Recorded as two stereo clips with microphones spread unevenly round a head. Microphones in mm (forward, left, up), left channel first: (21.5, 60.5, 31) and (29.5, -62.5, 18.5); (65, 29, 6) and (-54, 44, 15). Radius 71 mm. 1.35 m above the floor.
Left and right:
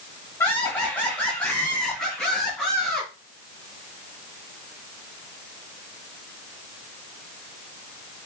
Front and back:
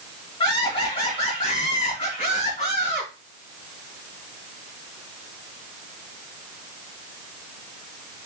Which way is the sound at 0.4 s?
25° left.